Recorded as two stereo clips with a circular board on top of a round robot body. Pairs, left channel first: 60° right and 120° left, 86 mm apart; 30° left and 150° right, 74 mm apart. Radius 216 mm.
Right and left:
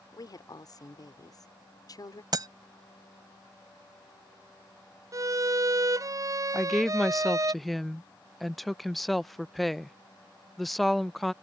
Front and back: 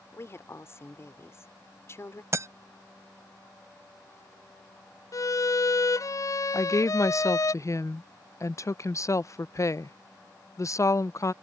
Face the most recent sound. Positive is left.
turn(degrees=30)